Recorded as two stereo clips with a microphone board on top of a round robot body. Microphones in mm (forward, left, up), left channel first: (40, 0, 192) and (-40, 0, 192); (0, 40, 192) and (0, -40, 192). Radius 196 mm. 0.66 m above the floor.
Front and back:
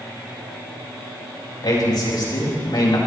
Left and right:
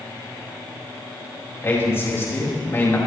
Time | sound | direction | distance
1.6 | a man speaking | 30° left | 5.5 m